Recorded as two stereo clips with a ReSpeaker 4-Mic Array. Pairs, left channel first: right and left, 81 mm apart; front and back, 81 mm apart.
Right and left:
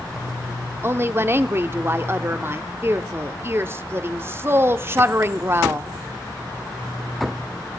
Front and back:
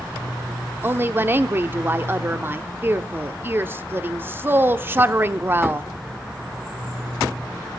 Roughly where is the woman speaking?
Behind left.